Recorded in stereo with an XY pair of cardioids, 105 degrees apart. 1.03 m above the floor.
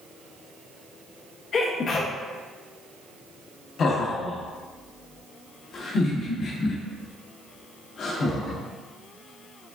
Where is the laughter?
55° left, 1.2 m.